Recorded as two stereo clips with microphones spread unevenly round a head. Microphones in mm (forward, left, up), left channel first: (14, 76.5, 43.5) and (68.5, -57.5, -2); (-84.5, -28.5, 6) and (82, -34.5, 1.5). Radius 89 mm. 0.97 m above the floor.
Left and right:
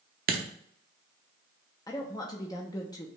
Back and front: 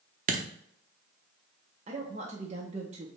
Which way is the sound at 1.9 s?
40° left.